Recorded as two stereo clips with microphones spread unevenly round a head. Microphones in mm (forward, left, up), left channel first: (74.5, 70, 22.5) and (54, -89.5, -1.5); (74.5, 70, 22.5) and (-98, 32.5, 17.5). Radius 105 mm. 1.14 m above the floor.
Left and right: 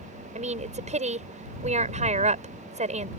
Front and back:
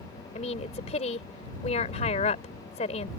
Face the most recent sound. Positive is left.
turn(degrees=-50)